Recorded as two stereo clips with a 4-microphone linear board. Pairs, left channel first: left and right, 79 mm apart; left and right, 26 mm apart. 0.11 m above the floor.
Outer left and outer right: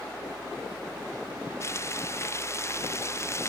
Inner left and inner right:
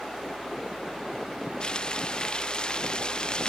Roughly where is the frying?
Left.